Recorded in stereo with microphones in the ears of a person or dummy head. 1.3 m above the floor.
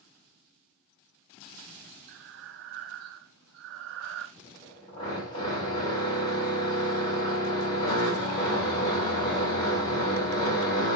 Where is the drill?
25° left (ahead or behind), 5.5 m.